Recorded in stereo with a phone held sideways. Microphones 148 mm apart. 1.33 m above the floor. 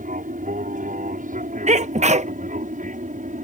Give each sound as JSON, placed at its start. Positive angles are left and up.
{"t": 0.0, "sound": "an aircraft", "side_deg": -65}
{"t": 1.7, "sound": "a sneeze", "side_deg": -50}